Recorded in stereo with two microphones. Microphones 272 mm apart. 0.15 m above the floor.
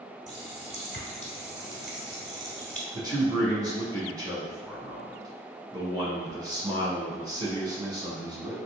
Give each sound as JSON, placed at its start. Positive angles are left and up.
{"t": 0.3, "sound": "a running tap", "side_deg": 30, "distance_m": 1.1}
{"t": 2.9, "sound": "a man speaking", "side_deg": -15, "distance_m": 1.2}